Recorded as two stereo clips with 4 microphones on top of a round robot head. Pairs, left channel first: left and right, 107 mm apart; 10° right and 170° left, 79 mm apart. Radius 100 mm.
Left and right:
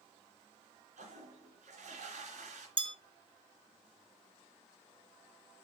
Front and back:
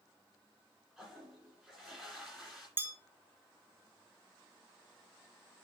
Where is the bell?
125° right, 1.0 m.